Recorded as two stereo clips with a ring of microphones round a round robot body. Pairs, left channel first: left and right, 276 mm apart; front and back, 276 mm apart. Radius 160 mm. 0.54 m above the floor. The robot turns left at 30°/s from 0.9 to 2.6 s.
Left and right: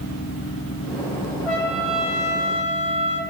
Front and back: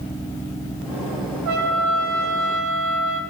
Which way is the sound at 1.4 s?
Straight behind.